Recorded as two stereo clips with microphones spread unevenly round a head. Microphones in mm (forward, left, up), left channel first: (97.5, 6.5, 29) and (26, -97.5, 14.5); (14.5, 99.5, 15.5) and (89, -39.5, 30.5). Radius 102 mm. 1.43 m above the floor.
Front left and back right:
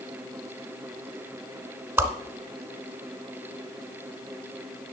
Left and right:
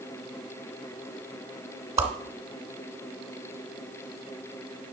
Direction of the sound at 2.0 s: 50° right.